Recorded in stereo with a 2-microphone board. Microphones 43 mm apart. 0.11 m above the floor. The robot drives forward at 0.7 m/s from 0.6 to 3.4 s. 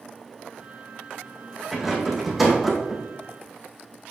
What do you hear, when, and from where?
1.7 s a rattle: 5° right (ahead or behind), 2.5 m